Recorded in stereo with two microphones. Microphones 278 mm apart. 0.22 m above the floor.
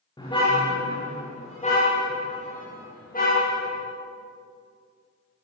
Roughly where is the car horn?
Centre.